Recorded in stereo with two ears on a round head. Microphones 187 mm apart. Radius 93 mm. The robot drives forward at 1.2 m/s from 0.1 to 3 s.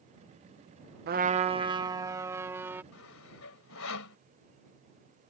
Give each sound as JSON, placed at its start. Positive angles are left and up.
{"t": 1.1, "sound": "a trumpet", "side_deg": -50}
{"t": 2.9, "sound": "sawing", "side_deg": 75}